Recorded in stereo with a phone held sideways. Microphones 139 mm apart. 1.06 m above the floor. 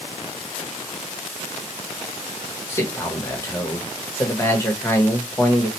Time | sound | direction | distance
2.7 | a man speaking | 20° left (ahead or behind) | 1.4 m